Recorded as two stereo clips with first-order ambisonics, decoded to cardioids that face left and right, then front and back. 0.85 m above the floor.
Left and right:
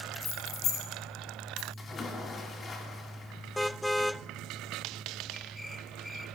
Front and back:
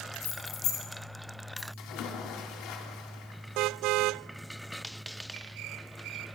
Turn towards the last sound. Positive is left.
turn(degrees=25)